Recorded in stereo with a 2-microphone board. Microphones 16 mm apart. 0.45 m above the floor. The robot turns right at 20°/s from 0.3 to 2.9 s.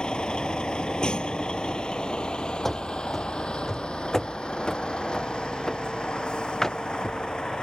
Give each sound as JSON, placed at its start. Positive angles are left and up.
{"t": 0.0, "sound": "a vehicle", "side_deg": 75}
{"t": 2.6, "sound": "running footsteps", "side_deg": 20}